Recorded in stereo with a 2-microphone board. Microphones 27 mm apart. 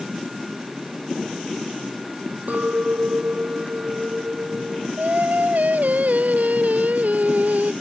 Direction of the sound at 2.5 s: 65° right (ahead or behind).